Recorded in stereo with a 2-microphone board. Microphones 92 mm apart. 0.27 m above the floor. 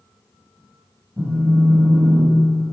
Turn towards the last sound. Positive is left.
turn(degrees=-15)  # may be behind; listen again after turning